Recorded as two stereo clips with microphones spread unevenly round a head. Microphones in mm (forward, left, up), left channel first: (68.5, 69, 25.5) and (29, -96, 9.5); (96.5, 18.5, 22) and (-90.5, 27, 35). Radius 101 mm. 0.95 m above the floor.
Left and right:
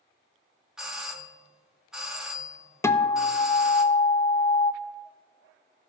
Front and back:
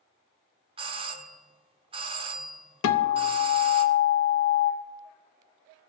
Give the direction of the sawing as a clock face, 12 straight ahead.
I don't hear sawing.